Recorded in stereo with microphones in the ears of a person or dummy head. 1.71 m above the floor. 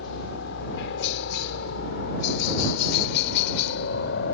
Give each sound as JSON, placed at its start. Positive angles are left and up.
{"t": 0.0, "sound": "a helicopter", "side_deg": 65}